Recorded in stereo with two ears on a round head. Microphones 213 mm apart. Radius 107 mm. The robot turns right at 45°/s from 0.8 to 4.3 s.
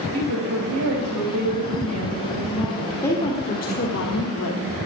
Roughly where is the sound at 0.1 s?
Right.